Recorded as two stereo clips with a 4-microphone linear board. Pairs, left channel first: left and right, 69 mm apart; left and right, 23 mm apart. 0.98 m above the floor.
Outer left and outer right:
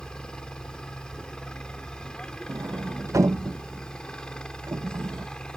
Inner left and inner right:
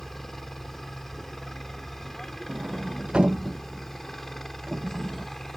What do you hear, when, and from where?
0.0 s a helicopter: 10° left (ahead or behind)
2.5 s a sliding door: 45° right (ahead or behind)